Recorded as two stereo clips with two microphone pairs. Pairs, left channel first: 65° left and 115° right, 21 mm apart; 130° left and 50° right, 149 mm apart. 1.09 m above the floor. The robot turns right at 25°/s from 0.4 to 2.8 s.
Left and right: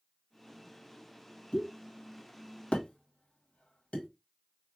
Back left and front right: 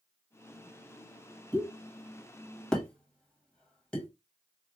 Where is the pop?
15° left, 1.4 m; by 4.1 s 45° left, 1.4 m.